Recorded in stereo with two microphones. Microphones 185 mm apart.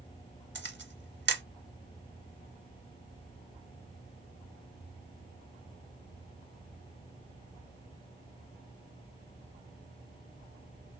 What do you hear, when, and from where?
0.6 s a camera shutter: 80° right, 0.7 m